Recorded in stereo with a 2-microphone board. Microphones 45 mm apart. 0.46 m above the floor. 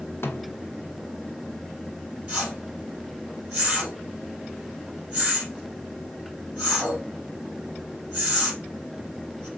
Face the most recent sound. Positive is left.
turn(degrees=-30)  # may be behind; listen again after turning